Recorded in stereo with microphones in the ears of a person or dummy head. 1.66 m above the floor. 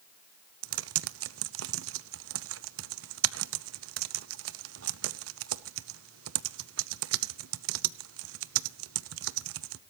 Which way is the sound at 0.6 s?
80° right.